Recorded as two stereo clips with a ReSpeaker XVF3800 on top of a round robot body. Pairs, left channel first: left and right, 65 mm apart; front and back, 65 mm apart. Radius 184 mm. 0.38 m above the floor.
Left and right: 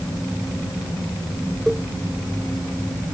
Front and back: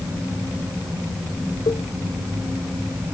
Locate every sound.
1.7 s a cowbell: 5° left